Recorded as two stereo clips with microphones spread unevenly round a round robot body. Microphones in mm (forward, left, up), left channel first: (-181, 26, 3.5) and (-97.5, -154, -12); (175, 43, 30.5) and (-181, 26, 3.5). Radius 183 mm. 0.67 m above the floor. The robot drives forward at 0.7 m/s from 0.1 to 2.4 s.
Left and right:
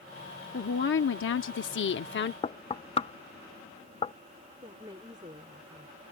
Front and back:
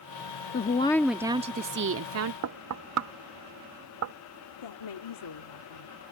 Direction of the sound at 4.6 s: 5° left.